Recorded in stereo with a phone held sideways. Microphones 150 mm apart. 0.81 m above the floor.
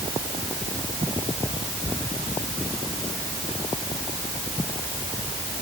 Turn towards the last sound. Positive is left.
No sound to turn to.